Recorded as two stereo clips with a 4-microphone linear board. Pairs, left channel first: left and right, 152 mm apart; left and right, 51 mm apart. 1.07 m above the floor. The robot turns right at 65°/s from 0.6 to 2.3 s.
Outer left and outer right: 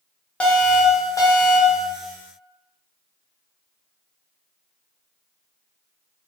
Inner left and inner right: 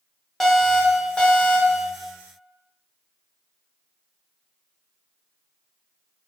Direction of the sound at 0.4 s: 10° left (ahead or behind).